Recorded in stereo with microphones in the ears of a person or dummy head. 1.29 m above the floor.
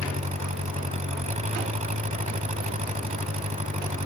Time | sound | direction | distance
0.0 | an engine running | 35° right (ahead or behind) | ?